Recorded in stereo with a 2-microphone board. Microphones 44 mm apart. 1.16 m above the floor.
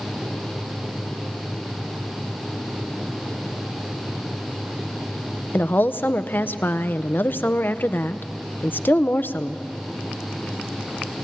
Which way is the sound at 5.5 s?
50° left (ahead or behind).